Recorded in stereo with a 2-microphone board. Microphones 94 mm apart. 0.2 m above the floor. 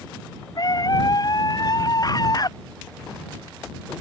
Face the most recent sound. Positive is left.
turn(degrees=45)  # may be behind; listen again after turning